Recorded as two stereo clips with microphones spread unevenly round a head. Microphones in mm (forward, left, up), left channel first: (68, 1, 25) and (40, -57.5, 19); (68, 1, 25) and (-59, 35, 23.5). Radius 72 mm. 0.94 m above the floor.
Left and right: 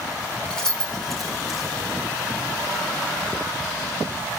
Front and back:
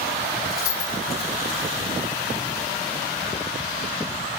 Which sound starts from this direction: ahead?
Keys jangling, at 0.5 s.